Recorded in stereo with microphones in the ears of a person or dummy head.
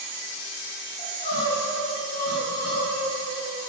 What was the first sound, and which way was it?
Crying, 40° left (ahead or behind).